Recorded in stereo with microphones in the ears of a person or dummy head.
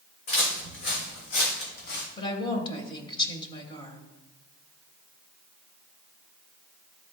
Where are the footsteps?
60° left (ahead or behind), 3.5 m; by 2.1 s 65° left (ahead or behind), 2.5 m.